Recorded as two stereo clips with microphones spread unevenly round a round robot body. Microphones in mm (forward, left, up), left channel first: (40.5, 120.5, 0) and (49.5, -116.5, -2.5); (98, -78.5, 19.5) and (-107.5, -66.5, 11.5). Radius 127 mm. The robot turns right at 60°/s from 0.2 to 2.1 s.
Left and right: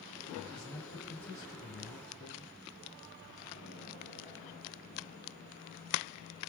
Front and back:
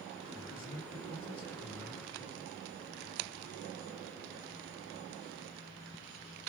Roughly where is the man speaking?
Ahead.